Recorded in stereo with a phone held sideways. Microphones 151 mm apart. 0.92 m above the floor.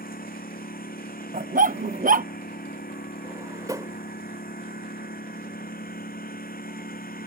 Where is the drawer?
25° right (ahead or behind).